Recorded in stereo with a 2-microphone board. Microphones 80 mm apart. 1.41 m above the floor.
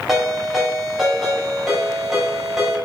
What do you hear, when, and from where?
0.1 s a ringtone: 5° right (ahead or behind), 3.5 m